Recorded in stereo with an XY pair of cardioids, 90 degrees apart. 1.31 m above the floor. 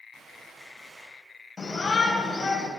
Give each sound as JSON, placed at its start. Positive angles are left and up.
{"t": 0.1, "sound": "a gunshot", "azimuth_deg": -60, "distance_m": 7.0}
{"t": 1.6, "sound": "a shout", "azimuth_deg": 35, "distance_m": 9.0}